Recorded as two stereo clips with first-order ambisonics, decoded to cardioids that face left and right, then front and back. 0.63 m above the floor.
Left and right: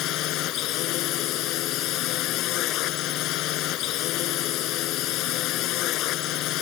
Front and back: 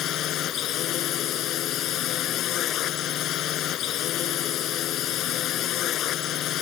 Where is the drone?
50° left.